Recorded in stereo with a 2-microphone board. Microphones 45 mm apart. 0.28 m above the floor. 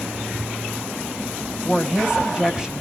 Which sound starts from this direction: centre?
A woman speaking, at 1.6 s.